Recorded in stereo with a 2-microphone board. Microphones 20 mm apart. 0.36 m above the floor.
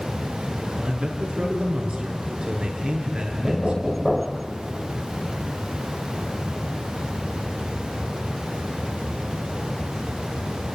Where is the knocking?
Centre (ahead or behind), 0.9 m.